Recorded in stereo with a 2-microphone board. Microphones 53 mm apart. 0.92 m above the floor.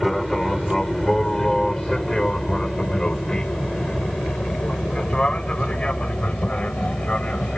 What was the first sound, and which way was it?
An aircraft, 5° left (ahead or behind).